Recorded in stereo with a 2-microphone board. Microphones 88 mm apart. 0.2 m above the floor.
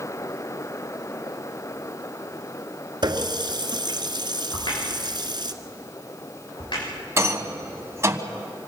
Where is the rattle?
35° right (ahead or behind), 1.3 m.